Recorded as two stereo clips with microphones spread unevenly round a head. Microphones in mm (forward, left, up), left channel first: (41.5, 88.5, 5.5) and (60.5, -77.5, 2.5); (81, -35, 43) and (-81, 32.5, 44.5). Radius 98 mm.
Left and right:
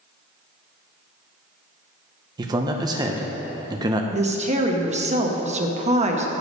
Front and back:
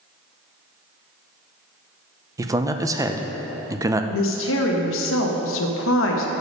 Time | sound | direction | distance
2.4 | a man speaking | 140° right | 0.6 m
4.1 | a woman speaking | 30° right | 0.9 m